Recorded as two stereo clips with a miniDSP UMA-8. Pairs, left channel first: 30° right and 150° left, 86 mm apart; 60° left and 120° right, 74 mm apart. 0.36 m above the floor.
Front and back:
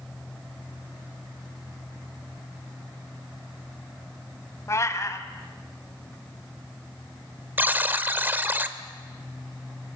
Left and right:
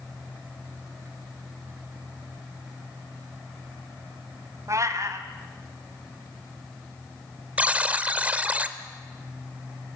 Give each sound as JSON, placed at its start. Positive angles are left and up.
{"t": 4.7, "sound": "a cat meowing", "azimuth_deg": -80, "distance_m": 1.2}
{"t": 7.6, "sound": "a buzzer", "azimuth_deg": -170, "distance_m": 0.9}